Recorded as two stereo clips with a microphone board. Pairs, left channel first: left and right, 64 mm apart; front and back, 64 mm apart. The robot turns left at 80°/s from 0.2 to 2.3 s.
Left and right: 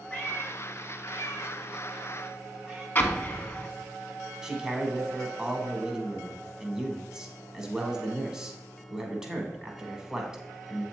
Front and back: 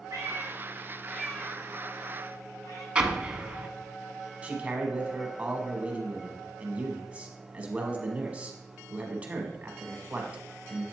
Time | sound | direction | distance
0.1 | a cat meowing | 160° left | 3 m
3.0 | an explosion | 120° left | 0.6 m
4.4 | a man speaking | 155° right | 1.1 m